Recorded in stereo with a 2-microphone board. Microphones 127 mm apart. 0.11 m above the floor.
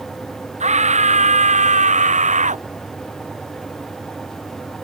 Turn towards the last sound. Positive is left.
turn(degrees=-75)  # may be behind; listen again after turning